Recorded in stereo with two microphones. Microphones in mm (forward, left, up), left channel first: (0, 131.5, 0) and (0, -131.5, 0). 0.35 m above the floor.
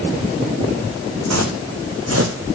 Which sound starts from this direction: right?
Footsteps, at 1.3 s.